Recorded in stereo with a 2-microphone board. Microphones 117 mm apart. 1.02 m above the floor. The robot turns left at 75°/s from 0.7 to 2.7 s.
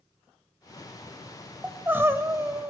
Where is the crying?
10° right (ahead or behind), 0.8 m; by 2.7 s 20° right (ahead or behind), 0.8 m.